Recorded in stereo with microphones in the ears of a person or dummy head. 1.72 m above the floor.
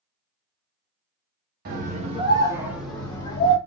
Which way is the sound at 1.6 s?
50° right (ahead or behind).